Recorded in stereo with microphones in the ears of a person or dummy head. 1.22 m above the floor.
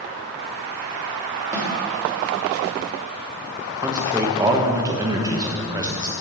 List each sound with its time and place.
1.5 s a snare drum: 15° right (ahead or behind), 3 m
3.8 s a man speaking: 20° right (ahead or behind), 1.1 m